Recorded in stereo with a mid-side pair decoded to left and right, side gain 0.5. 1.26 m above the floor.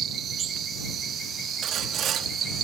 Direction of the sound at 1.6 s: 65° right.